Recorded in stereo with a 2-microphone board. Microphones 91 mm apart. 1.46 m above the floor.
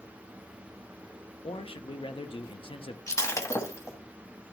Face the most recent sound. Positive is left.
turn(degrees=35)  # may be behind; listen again after turning